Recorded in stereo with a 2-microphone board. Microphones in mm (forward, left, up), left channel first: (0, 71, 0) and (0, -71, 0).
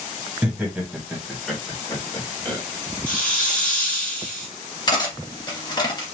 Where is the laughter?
10° right (ahead or behind), 2 m; by 2.6 s 20° left (ahead or behind), 3 m.